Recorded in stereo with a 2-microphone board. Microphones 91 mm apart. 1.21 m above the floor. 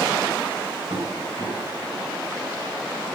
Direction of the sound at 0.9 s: 85° right.